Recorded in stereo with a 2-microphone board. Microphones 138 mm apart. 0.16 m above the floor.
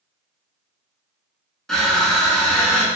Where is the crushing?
5° left (ahead or behind), 0.7 m.